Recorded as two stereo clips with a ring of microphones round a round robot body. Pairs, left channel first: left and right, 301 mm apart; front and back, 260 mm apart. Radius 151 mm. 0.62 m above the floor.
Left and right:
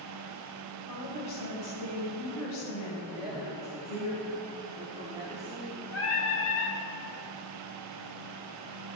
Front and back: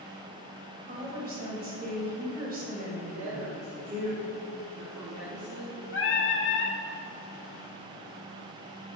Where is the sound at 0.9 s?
125° left, 3 m.